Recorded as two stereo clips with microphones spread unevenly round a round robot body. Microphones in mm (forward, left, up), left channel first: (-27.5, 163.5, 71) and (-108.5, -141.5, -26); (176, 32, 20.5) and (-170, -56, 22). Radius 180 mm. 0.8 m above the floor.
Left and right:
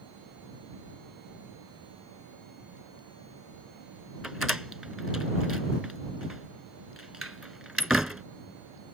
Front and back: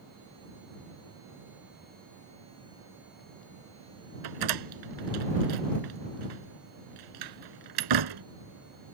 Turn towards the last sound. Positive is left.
turn(degrees=165)